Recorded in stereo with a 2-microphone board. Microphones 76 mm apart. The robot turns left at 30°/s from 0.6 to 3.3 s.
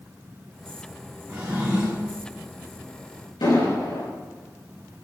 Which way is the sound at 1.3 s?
25° right (ahead or behind).